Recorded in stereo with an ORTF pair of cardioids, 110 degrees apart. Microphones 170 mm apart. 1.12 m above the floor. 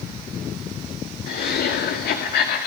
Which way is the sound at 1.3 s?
65° left.